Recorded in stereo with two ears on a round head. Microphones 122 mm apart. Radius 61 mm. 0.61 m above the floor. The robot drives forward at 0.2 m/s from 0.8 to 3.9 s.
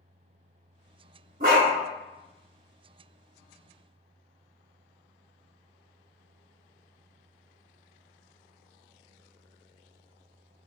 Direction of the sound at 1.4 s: 65° right (ahead or behind).